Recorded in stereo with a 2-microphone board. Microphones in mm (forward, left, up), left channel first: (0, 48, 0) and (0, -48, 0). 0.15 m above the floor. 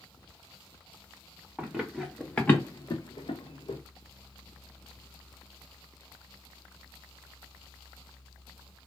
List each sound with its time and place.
1.6 s running footsteps: 15° right (ahead or behind), 1.2 m; by 3.8 s 85° left, 1.0 m